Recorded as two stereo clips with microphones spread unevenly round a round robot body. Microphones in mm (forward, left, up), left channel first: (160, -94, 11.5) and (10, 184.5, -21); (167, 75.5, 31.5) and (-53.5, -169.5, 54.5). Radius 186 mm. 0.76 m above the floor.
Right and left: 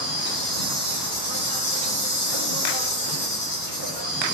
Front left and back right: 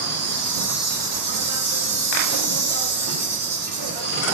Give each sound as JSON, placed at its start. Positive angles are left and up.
{"t": 0.0, "sound": "an insect", "azimuth_deg": -90, "distance_m": 2.5}